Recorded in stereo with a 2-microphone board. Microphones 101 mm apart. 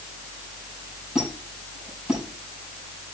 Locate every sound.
1.1 s a squeak: 10° right (ahead or behind), 5.5 m